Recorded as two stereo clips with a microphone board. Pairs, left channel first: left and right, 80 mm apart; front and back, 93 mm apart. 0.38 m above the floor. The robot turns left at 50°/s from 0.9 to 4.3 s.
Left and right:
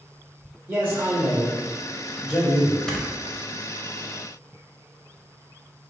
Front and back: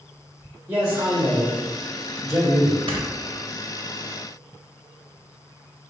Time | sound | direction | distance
0.7 | a man speaking | 135° right | 1.2 m
2.9 | snoring | 170° left | 0.6 m